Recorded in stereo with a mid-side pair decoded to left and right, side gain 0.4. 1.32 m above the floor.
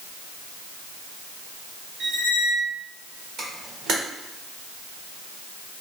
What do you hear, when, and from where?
2.0 s a squeak: 70° right, 0.8 m
3.4 s a camera shutter: 70° right, 1.0 m